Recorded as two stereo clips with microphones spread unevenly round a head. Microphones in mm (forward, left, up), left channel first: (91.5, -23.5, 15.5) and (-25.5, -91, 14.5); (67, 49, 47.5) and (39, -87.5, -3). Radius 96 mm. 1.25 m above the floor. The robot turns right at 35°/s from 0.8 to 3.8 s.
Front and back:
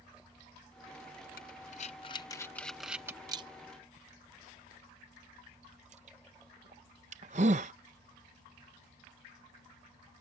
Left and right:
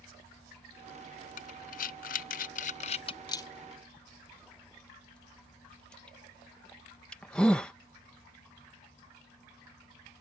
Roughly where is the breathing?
Left.